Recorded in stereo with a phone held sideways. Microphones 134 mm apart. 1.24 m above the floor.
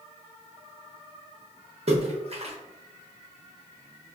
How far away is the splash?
About 0.7 m.